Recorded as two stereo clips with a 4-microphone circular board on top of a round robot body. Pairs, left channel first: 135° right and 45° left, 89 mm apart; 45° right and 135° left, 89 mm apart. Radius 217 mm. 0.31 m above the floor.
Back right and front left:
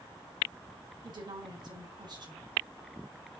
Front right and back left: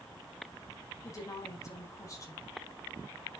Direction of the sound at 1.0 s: 10° left.